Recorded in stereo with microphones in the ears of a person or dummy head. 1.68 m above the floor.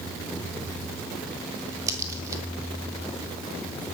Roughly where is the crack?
Centre.